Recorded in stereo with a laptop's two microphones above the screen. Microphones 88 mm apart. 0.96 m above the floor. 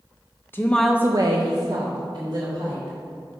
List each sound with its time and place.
0.5 s a woman speaking: 25° left (ahead or behind), 0.8 m; by 3.0 s 60° right (ahead or behind), 2.5 m